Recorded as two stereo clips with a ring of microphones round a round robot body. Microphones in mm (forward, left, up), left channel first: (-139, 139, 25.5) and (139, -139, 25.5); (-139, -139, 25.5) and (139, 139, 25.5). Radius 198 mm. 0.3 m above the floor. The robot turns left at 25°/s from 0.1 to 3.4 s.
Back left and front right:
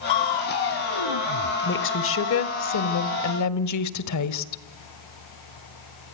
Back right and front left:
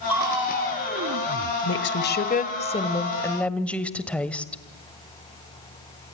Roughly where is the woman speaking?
Behind.